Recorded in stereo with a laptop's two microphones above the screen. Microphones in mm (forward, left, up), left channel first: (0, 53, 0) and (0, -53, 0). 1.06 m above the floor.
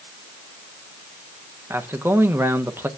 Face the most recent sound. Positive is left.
turn(degrees=-20)  # may be behind; listen again after turning